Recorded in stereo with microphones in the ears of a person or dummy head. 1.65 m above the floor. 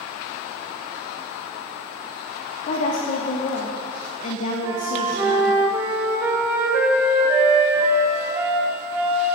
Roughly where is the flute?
Centre.